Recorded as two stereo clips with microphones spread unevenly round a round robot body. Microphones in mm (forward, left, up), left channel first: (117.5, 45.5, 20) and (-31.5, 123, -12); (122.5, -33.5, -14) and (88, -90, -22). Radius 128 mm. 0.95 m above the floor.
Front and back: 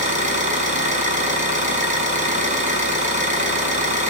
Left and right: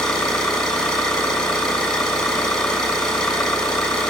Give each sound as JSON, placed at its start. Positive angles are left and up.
{"t": 0.0, "sound": "an engine running", "azimuth_deg": 110, "distance_m": 5.5}